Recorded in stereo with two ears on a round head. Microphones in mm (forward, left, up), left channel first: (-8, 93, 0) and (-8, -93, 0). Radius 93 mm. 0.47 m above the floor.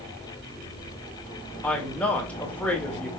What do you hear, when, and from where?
1.6 s a woman speaking: 5° left (ahead or behind), 1.7 m